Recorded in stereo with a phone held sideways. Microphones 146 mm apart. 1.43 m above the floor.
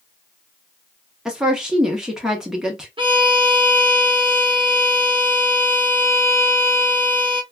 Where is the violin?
35° right (ahead or behind), 0.8 m.